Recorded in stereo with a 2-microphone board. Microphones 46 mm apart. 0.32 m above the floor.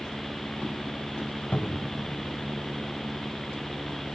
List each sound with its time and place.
1.5 s a cupboard door: 30° left (ahead or behind), 1.1 m